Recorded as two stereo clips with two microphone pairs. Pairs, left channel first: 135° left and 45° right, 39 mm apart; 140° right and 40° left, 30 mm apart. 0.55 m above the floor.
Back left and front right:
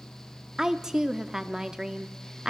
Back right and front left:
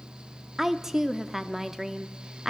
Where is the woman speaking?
10° right, 0.6 m.